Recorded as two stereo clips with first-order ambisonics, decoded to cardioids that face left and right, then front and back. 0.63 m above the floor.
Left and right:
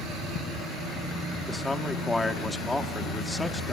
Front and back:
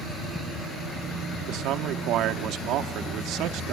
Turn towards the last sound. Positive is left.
turn(degrees=170)